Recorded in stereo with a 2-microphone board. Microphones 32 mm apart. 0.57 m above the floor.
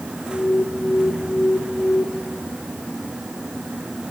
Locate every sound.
0.3 s an alarm: 80° left, 7.5 m